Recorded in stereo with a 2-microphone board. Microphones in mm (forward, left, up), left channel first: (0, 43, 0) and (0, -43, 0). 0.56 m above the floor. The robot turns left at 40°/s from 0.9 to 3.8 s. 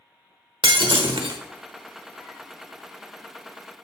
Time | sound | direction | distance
0.6 | breaking glass | 75° right (ahead or behind) | 1.0 m